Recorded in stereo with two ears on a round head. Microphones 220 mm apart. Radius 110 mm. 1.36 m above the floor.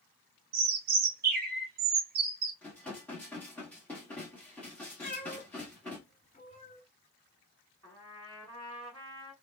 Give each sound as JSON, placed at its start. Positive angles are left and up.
{"t": 0.5, "sound": "a bird", "side_deg": -40, "distance_m": 0.7}
{"t": 2.6, "sound": "dishes clattering", "side_deg": 5, "distance_m": 1.3}
{"t": 5.0, "sound": "a cat meowing", "side_deg": 25, "distance_m": 1.8}
{"t": 7.8, "sound": "a trumpet", "side_deg": 15, "distance_m": 2.0}